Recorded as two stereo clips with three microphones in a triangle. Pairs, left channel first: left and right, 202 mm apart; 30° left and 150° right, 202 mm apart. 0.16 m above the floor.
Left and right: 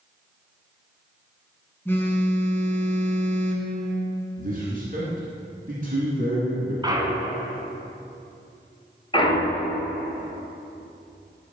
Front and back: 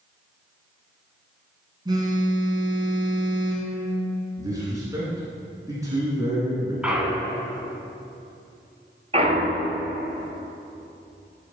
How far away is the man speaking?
About 2.5 m.